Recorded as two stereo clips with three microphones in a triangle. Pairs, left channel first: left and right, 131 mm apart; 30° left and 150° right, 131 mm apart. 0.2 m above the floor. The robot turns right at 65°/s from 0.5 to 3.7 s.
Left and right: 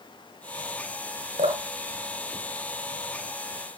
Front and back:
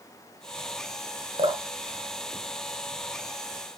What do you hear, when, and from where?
1.4 s dripping: 115° right, 1.4 m; by 3.5 s 20° left, 1.4 m